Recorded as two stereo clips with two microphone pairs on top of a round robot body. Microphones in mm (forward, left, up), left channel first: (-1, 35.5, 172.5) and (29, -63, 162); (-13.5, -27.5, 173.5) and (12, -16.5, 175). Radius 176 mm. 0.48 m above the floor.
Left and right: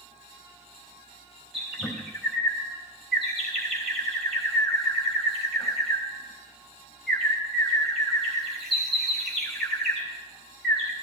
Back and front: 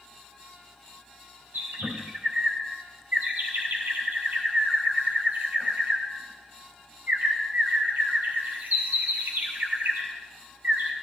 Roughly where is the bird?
Ahead.